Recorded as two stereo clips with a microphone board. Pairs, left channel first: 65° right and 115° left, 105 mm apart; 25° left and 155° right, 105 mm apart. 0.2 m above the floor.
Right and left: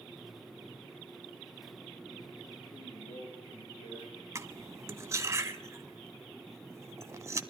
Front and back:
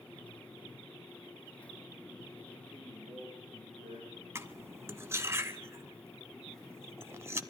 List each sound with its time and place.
2.7 s a man speaking: 75° right, 7.5 m; by 4.2 s 80° right, 8 m
4.3 s cutlery clinking: 155° left, 0.7 m